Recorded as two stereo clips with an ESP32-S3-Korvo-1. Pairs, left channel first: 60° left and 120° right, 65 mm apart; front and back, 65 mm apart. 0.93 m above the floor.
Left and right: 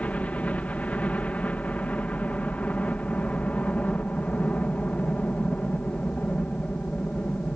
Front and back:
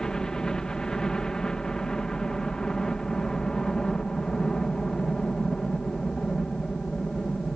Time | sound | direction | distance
0.0 | a helicopter | 60° left | ?